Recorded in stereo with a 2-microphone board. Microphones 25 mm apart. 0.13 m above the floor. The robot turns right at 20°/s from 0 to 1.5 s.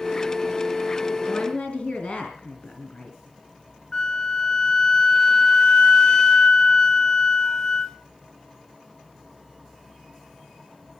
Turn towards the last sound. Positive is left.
turn(degrees=30)  # may be behind; listen again after turning